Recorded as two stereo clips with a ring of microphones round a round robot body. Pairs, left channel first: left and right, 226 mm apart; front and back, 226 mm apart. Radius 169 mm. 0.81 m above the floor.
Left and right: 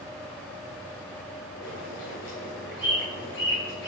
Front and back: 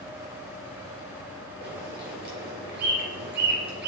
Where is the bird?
140° left, 3 m.